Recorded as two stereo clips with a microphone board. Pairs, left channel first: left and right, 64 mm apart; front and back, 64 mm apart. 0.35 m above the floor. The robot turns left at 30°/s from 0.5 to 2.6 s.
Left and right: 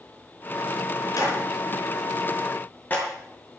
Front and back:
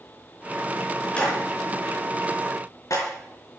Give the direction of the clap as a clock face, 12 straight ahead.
10 o'clock.